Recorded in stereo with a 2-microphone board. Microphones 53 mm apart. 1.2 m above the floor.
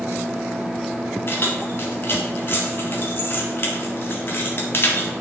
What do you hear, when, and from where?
1.3 s keys jangling: 45° left (ahead or behind), 1.6 m